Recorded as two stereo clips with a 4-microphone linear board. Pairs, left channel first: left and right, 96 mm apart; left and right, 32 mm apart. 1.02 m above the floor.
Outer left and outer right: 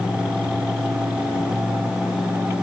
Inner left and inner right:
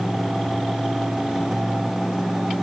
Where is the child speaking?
I don't hear a child speaking.